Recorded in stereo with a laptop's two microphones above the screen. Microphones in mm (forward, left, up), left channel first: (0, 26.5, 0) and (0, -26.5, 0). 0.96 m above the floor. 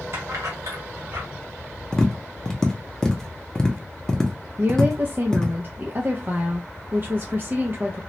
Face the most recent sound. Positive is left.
turn(degrees=-40)  # may be behind; listen again after turning